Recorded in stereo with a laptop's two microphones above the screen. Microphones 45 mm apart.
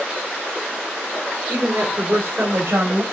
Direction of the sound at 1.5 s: 40° right (ahead or behind).